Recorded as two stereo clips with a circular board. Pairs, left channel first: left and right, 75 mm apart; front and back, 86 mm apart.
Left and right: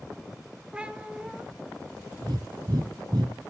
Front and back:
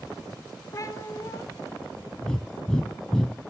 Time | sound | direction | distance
0.7 | a cat meowing | 20° right | 1.0 m
2.2 | breathing | 80° right | 1.3 m